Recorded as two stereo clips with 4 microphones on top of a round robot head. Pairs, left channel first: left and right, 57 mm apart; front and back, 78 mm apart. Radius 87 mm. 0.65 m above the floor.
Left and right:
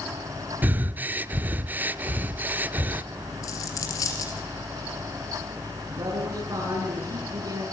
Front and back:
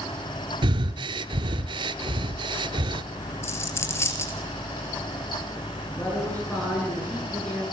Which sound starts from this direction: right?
A man speaking, at 5.9 s.